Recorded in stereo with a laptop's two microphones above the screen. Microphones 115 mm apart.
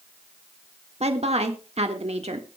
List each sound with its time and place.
1.0 s a woman speaking: 65° right (ahead or behind), 1.6 m